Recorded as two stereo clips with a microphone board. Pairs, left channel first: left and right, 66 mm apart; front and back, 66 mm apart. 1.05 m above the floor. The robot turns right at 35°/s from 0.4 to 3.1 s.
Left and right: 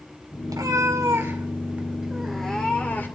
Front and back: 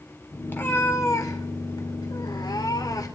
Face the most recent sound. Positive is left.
turn(degrees=30)